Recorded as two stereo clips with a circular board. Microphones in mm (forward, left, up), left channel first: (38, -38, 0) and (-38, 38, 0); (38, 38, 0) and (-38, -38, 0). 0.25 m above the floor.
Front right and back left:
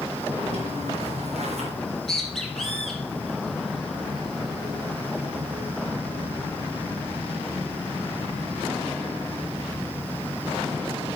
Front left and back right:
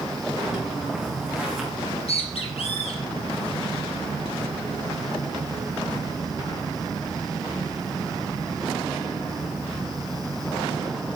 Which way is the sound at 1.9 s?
40° left.